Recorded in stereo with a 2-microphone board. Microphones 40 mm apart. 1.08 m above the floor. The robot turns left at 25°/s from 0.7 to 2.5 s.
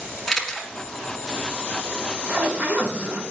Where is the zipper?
25° right (ahead or behind), 1.3 m; by 3.2 s 35° right (ahead or behind), 1.3 m.